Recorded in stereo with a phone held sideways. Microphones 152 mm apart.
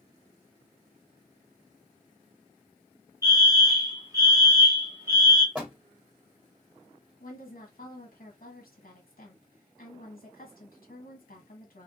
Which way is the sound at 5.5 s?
10° right (ahead or behind).